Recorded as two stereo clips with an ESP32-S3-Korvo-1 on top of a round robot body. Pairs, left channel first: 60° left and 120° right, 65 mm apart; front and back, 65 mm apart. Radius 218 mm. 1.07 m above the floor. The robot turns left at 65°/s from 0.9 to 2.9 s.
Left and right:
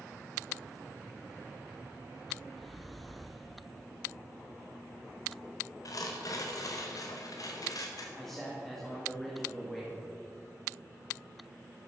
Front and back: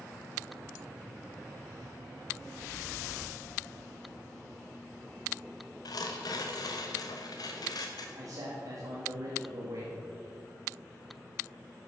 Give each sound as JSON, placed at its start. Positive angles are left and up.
{"t": 5.8, "sound": "tearing paper", "azimuth_deg": 25, "distance_m": 0.8}
{"t": 8.2, "sound": "a man speaking", "azimuth_deg": 145, "distance_m": 1.9}